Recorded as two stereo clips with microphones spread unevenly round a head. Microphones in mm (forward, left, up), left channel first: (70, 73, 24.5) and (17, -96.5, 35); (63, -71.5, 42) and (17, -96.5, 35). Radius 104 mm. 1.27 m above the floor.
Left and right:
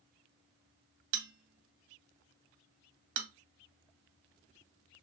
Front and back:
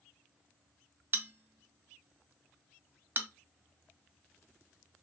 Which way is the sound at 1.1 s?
105° right.